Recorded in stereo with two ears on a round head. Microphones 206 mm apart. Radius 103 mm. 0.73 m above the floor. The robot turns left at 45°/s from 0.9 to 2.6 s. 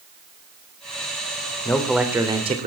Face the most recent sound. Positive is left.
turn(degrees=-35)